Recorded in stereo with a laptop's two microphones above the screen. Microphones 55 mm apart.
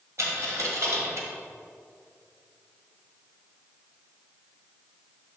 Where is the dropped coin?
60° right (ahead or behind), 1.5 m.